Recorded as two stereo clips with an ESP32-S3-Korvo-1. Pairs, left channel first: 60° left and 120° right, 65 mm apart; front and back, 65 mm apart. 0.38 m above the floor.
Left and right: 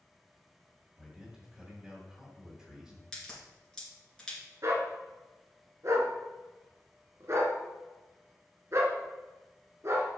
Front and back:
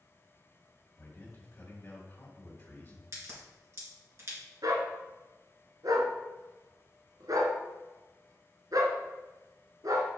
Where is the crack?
140° left, 3 m.